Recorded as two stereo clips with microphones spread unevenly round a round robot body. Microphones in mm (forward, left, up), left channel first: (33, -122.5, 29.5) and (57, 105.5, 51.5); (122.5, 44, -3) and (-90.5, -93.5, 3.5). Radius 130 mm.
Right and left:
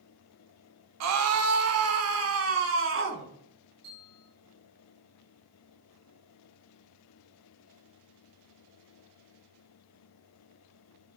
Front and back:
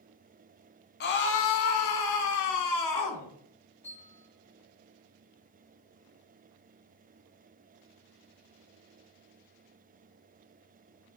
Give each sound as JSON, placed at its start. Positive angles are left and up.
{"t": 1.0, "sound": "a scream", "azimuth_deg": 85, "distance_m": 1.8}
{"t": 3.8, "sound": "a bell", "azimuth_deg": 115, "distance_m": 7.5}